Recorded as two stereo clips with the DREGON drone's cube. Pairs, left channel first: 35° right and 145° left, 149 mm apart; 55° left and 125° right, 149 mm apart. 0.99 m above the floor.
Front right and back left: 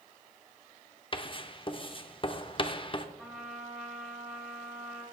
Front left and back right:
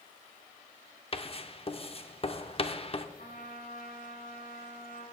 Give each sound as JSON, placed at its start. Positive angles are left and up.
{"t": 1.1, "sound": "writing", "azimuth_deg": 15, "distance_m": 0.8}
{"t": 3.2, "sound": "a trumpet", "azimuth_deg": 60, "distance_m": 5.0}